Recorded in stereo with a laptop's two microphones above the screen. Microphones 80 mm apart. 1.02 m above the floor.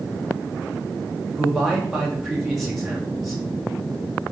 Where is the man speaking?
Centre (ahead or behind), 1.1 m.